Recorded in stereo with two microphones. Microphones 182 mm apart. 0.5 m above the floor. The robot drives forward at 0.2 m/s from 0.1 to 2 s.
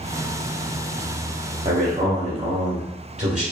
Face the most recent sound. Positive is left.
turn(degrees=-40)  # may be behind; listen again after turning